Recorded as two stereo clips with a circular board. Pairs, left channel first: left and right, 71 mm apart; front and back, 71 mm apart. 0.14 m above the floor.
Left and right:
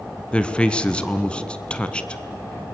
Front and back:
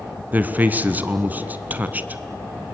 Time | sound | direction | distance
0.3 | a man speaking | 150° left | 1.2 m